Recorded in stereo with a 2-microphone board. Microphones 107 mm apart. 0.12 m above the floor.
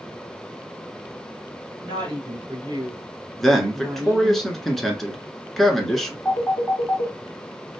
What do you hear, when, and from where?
1.8 s a woman speaking: 45° right (ahead or behind), 1.7 m; by 4.4 s 15° right (ahead or behind), 1.7 m
3.4 s a man speaking: centre (ahead or behind), 1.2 m
6.2 s a phone ringing: 5° left (ahead or behind), 1.8 m